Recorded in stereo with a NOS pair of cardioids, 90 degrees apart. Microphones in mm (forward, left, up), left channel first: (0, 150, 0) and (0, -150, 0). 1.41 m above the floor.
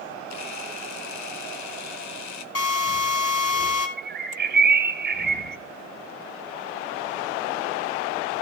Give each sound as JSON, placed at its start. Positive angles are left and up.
{"t": 0.3, "sound": "a camera shutter", "azimuth_deg": 65, "distance_m": 1.3}
{"t": 2.5, "sound": "a drill", "azimuth_deg": 50, "distance_m": 4.0}
{"t": 4.0, "sound": "a bird", "azimuth_deg": -30, "distance_m": 1.6}